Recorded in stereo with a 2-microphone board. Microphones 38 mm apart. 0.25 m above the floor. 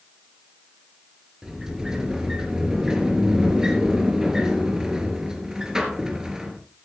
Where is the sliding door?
15° right (ahead or behind), 3.5 m.